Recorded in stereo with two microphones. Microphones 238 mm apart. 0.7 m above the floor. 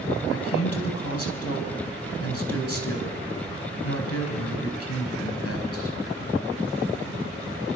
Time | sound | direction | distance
0.3 | a man speaking | 70° left (ahead or behind) | 5 m